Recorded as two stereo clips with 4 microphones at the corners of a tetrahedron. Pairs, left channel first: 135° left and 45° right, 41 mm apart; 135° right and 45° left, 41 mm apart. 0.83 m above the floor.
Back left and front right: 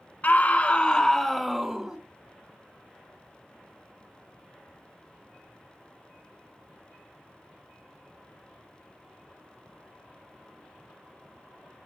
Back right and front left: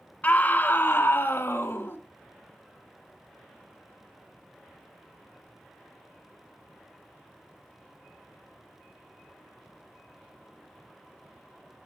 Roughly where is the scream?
Behind.